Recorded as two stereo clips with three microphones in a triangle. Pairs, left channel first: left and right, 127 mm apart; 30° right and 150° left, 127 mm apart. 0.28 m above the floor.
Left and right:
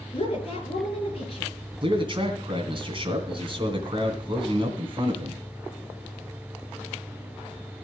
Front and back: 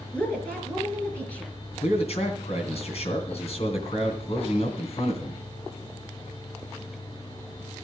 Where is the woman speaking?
50° left, 4 m.